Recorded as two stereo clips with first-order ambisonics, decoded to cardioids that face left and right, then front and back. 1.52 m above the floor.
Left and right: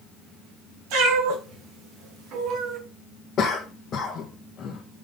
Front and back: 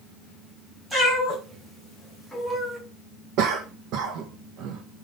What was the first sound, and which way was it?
A cat meowing, 95° right.